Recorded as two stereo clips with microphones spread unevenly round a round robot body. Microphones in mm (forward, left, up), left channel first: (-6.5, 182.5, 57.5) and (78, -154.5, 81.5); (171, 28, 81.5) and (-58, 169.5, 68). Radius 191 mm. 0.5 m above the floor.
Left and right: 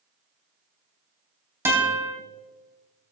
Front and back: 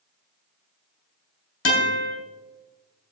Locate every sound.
1.6 s a guitar: 10° left, 3.5 m